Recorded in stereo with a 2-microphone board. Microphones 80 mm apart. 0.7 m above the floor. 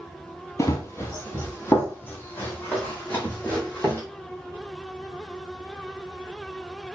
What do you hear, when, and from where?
0.6 s running footsteps: 35° left (ahead or behind), 1.2 m; by 4.0 s 20° left (ahead or behind), 2.5 m